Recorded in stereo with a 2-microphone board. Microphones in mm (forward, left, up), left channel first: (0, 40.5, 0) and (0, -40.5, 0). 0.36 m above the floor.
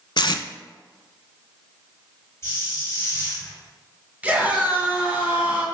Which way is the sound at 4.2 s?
15° right (ahead or behind).